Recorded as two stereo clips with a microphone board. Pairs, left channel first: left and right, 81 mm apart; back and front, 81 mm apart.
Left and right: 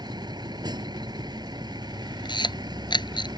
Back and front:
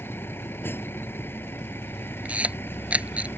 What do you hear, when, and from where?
0.0 s a vehicle: 120° right
2.2 s a camera shutter: 75° left